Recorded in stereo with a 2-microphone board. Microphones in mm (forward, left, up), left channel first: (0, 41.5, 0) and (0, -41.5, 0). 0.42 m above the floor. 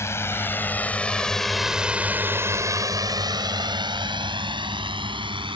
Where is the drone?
30° left (ahead or behind); by 5.6 s 65° right (ahead or behind).